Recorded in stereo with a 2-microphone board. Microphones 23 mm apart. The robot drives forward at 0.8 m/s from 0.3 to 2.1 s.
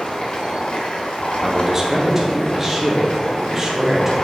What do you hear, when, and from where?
0.0 s running water: 55° left (ahead or behind), 1.5 m; by 4.2 s 50° left (ahead or behind), 1.6 m
1.4 s a man speaking: 25° right (ahead or behind), 1.2 m; by 4.2 s 20° right (ahead or behind), 1.7 m